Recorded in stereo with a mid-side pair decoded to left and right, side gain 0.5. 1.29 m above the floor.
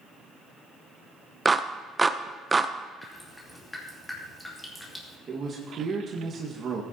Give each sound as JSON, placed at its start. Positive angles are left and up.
{"t": 1.4, "sound": "a clap", "azimuth_deg": -20, "distance_m": 0.7}
{"t": 3.0, "sound": "dripping", "azimuth_deg": 10, "distance_m": 2.5}
{"t": 5.3, "sound": "a man speaking", "azimuth_deg": -45, "distance_m": 1.7}